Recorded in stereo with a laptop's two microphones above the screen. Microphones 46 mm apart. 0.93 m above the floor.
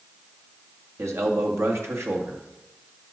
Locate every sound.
1.0 s a man speaking: 70° right (ahead or behind), 1.4 m